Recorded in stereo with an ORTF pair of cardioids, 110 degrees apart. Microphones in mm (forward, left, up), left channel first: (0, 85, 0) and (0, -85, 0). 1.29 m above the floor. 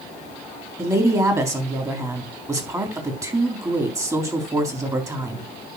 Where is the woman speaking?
20° right, 3.5 m.